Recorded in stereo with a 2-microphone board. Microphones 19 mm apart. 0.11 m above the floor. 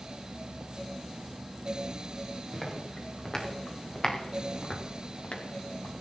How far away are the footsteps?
About 5 m.